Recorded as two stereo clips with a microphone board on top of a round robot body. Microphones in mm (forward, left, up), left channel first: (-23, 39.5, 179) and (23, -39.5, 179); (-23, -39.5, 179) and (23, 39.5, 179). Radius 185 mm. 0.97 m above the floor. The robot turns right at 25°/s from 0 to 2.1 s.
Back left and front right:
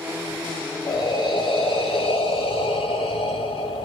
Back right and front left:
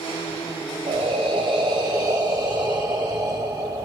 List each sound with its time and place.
0.9 s breathing: 80° left, 1.6 m; by 3.9 s 110° left, 1.6 m